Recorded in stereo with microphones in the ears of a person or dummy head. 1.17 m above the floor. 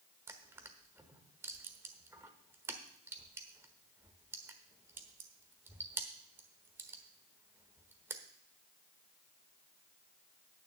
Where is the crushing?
15° right (ahead or behind), 1.1 m.